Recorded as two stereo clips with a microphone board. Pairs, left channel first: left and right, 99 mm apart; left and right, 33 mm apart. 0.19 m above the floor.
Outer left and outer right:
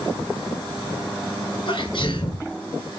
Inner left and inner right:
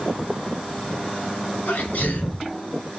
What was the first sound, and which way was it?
A sneeze, 50° left (ahead or behind).